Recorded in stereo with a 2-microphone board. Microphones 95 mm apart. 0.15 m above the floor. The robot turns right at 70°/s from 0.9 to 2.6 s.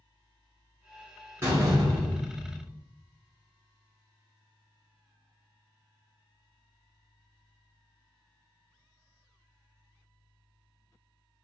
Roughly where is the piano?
No piano in this recording.